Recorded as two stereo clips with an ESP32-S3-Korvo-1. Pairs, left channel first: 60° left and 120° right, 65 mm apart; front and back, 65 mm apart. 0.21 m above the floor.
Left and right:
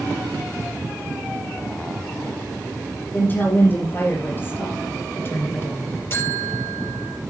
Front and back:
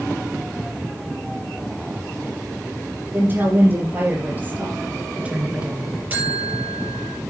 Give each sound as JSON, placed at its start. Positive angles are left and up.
{"t": 3.1, "sound": "a woman speaking", "azimuth_deg": 120, "distance_m": 5.5}
{"t": 6.1, "sound": "a buzzer", "azimuth_deg": 115, "distance_m": 4.5}